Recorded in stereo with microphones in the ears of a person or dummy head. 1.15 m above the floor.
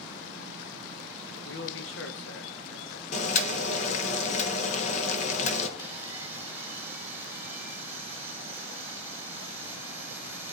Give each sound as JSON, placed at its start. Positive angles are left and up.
{"t": 1.4, "sound": "a man speaking", "side_deg": 65, "distance_m": 1.4}
{"t": 3.1, "sound": "boiling", "side_deg": 40, "distance_m": 1.3}
{"t": 5.8, "sound": "sawing", "side_deg": -15, "distance_m": 3.0}